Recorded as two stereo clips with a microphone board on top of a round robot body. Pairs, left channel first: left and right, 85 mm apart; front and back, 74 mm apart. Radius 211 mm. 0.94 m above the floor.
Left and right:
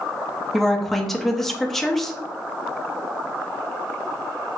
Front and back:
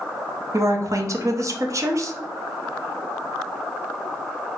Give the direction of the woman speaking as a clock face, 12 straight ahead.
6 o'clock.